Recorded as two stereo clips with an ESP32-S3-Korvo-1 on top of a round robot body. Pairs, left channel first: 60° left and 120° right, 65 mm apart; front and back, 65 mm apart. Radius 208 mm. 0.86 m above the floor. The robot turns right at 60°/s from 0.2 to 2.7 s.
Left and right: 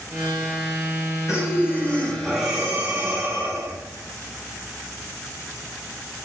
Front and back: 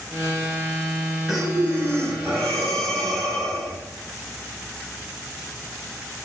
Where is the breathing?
95° left, 6.5 m; by 3.8 s straight behind, 6.5 m.